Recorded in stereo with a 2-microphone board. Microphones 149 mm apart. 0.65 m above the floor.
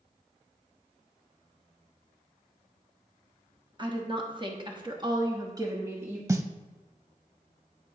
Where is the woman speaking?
30° right (ahead or behind), 1.2 m; by 6.2 s 15° right (ahead or behind), 1.1 m.